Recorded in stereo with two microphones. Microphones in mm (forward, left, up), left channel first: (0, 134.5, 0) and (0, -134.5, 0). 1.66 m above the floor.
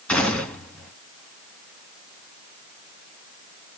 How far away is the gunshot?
About 1.2 m.